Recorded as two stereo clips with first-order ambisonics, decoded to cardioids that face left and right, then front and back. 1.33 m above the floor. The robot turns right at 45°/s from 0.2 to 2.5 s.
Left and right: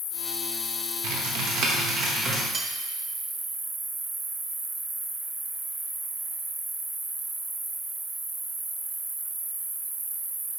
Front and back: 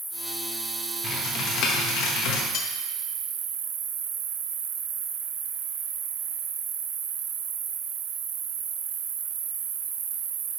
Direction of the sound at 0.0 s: 100° left.